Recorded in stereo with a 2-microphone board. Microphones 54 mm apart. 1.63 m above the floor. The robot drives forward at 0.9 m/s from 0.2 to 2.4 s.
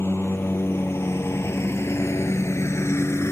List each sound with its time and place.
0.0 s a lawn mower: 45° left (ahead or behind); by 3.3 s 55° left (ahead or behind)